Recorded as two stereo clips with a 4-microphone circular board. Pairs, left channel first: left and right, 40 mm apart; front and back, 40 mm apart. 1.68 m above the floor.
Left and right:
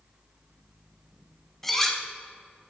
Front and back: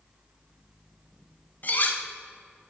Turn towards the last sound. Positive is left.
turn(degrees=10)